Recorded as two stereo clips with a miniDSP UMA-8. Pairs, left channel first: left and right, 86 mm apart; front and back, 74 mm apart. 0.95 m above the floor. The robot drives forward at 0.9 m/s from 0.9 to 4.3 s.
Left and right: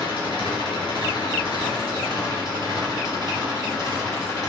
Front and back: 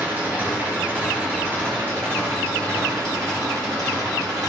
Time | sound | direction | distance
0.0 | an engine running | 115° left | 4 m